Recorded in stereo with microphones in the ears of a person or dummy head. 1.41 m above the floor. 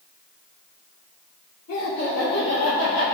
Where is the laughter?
80° left, 3 m; by 3.0 s 85° left, 3.5 m.